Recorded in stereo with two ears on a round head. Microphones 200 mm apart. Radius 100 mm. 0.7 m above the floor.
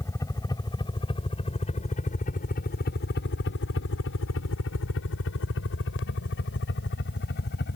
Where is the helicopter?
15° left (ahead or behind); by 7.8 s 45° left (ahead or behind).